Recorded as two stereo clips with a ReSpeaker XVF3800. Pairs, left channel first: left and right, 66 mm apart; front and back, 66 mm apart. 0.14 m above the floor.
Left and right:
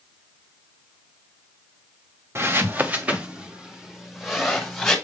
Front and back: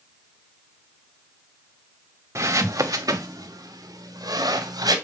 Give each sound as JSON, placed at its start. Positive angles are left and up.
{"t": 2.4, "sound": "footsteps", "azimuth_deg": -140, "distance_m": 1.0}